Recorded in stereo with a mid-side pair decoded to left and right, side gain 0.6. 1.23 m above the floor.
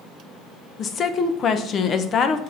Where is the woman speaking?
45° left, 0.8 m.